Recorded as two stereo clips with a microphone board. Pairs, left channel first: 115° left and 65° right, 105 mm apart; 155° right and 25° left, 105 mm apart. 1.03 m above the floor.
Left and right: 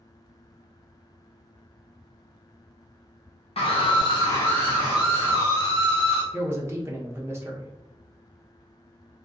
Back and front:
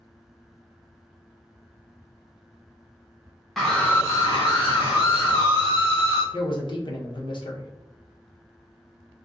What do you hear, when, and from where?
3.6 s a scream: 115° left, 0.7 m; by 6.2 s 130° right, 1.5 m
6.3 s a man speaking: 130° right, 0.7 m